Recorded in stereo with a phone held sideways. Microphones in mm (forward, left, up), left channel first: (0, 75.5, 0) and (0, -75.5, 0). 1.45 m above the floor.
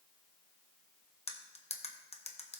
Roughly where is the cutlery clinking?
Left.